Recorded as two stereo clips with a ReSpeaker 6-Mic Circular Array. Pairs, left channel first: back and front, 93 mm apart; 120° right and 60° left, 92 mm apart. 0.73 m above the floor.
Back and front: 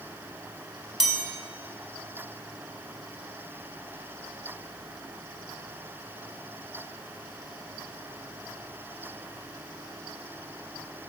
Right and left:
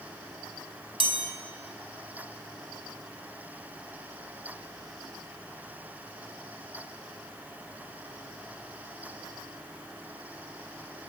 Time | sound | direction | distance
1.0 | a chime | 85° left | 1.7 m